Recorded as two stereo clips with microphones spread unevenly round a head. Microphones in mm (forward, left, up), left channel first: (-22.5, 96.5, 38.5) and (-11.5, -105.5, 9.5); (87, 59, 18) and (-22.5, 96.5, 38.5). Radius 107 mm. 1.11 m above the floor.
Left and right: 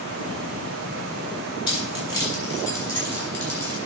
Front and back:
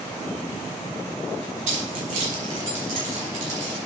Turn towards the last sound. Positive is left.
turn(degrees=175)